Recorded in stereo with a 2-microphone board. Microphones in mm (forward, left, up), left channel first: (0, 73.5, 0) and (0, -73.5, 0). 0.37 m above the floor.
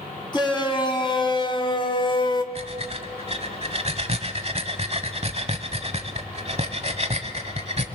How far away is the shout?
About 3 m.